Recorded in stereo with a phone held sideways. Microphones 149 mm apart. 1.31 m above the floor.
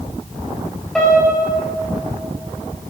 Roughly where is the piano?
Centre.